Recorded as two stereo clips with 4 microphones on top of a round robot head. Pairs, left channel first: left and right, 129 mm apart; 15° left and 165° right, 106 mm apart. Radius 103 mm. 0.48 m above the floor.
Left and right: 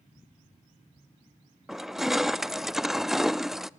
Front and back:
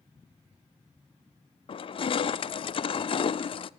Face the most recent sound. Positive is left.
turn(degrees=-5)